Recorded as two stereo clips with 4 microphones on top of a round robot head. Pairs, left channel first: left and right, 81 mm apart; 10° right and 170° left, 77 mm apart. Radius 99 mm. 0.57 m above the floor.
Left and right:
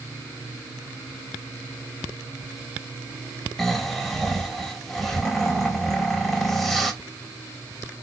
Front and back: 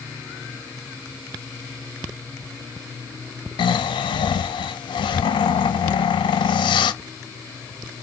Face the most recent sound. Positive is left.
turn(degrees=5)